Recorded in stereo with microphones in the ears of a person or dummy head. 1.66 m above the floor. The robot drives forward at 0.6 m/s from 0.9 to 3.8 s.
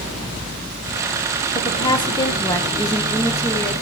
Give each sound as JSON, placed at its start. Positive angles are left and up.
{"t": 1.6, "sound": "a woman speaking", "side_deg": 25, "distance_m": 1.7}